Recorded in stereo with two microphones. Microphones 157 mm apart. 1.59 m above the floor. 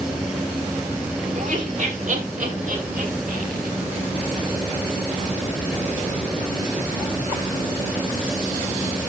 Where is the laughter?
50° right (ahead or behind), 6 m; by 3.7 s 65° right (ahead or behind), 7 m.